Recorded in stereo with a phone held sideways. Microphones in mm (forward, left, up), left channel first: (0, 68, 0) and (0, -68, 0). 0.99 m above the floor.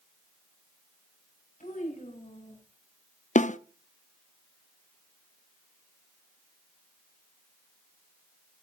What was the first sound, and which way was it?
A child speaking, 70° left (ahead or behind).